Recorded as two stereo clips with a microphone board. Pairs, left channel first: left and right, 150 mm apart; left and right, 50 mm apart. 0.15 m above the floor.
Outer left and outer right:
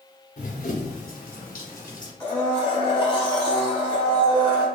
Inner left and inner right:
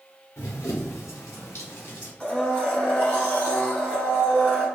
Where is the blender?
35° left (ahead or behind), 1.6 m.